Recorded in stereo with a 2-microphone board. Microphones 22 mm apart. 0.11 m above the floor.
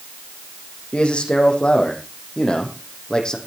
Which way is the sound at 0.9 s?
55° left (ahead or behind).